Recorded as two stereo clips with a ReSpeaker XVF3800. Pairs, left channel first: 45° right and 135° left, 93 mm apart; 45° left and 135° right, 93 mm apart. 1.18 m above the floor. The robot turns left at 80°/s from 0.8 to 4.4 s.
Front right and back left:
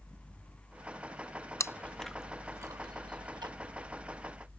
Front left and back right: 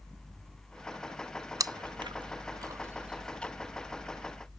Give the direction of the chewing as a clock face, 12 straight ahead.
3 o'clock.